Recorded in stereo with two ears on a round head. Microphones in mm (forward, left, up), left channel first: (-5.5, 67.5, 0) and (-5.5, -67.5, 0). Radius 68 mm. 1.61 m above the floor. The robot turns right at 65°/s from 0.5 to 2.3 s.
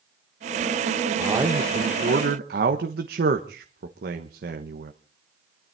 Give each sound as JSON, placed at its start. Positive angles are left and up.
{"t": 1.2, "sound": "a man speaking", "azimuth_deg": -165, "distance_m": 1.3}